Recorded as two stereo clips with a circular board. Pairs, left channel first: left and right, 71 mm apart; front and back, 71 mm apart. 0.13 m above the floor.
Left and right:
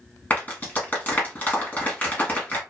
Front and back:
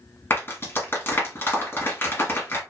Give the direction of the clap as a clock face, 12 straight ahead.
11 o'clock.